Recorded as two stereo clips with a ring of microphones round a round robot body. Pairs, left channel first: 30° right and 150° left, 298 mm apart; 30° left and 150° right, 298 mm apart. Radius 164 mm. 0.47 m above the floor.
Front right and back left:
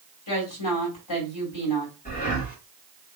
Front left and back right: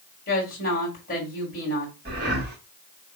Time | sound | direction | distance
0.3 | a woman speaking | 30° right | 2.5 m
2.0 | breathing | 95° right | 1.6 m